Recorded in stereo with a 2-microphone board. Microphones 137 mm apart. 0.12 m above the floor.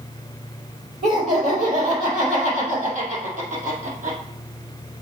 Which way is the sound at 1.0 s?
60° right (ahead or behind).